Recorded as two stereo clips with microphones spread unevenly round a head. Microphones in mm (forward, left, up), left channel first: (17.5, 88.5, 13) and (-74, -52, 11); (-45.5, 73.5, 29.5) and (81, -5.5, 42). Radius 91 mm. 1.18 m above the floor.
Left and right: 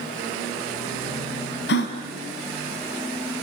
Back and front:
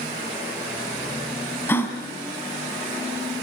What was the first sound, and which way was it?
A gasp, 70° left.